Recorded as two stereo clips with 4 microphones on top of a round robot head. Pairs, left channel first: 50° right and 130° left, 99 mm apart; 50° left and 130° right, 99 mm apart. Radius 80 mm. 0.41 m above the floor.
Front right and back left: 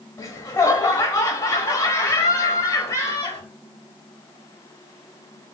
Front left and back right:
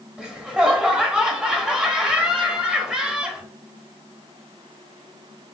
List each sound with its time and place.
0.2 s laughter: 60° right, 1.4 m